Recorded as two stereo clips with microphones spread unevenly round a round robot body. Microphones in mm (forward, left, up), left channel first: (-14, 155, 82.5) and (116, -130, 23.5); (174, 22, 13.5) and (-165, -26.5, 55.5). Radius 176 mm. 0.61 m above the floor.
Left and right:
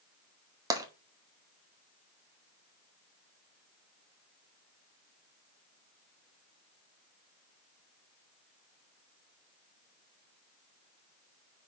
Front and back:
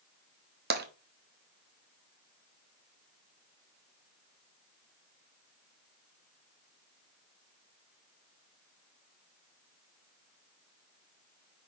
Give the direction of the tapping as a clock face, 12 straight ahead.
4 o'clock.